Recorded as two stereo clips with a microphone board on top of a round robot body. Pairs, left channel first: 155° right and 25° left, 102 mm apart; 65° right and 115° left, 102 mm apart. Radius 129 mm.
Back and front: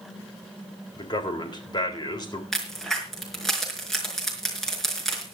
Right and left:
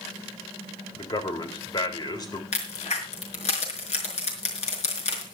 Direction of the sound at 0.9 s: 115° right.